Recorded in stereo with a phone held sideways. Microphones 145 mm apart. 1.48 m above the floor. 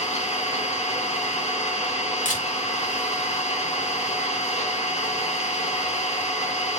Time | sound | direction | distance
0.0 | an engine running | 50° left (ahead or behind) | 1.1 m
2.2 | a camera shutter | 60° left (ahead or behind) | 1.6 m